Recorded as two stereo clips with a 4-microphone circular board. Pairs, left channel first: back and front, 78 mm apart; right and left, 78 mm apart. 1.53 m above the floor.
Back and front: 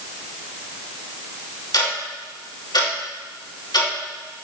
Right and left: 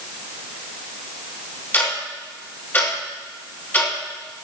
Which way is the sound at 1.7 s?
155° right.